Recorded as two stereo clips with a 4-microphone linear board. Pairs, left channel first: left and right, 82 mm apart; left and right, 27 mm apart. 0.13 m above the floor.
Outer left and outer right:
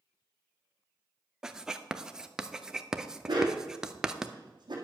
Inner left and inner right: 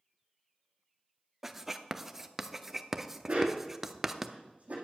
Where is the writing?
5° right (ahead or behind), 0.6 m.